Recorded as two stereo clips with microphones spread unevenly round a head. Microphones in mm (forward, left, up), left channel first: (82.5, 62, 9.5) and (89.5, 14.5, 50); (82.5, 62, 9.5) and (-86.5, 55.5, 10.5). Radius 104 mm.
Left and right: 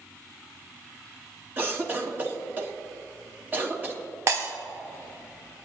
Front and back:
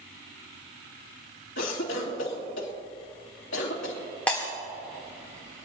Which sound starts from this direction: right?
Breaking glass, at 4.3 s.